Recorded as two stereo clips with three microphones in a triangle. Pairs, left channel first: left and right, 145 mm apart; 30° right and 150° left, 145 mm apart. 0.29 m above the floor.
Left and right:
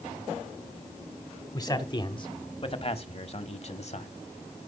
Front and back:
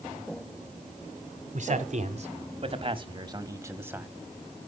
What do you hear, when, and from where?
1.5 s a man speaking: 150° left, 1.6 m; by 4.1 s 75° left, 1.3 m